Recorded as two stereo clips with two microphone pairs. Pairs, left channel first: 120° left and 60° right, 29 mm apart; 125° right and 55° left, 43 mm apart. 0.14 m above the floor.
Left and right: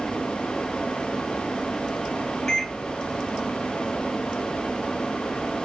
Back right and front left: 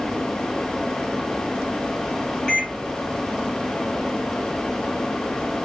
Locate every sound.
2.5 s a microwave: 170° right, 1.4 m